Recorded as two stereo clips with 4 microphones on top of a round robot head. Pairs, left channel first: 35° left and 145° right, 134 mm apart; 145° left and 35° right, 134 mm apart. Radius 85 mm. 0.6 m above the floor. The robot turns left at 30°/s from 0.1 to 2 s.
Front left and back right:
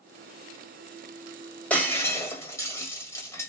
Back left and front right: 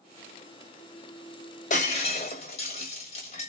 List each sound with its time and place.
1.7 s breaking glass: 115° left, 1.4 m; by 3.5 s 105° left, 1.4 m